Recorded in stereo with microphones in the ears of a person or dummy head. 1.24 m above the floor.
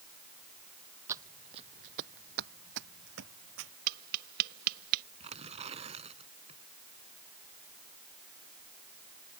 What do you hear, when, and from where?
1.1 s footsteps: 15° right (ahead or behind); by 3.7 s 70° right (ahead or behind)
3.9 s tapping: 50° right (ahead or behind)
5.2 s tearing paper: 30° right (ahead or behind)